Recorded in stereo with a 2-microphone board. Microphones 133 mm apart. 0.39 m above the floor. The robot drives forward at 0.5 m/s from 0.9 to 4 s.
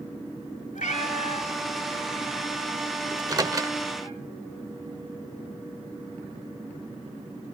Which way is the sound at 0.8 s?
65° left (ahead or behind).